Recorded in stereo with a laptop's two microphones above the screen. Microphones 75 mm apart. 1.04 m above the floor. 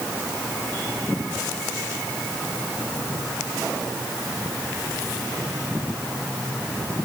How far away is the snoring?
No snoring in this recording.